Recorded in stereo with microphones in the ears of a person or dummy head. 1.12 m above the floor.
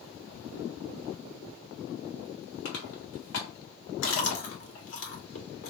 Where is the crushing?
85° left, 2.5 m.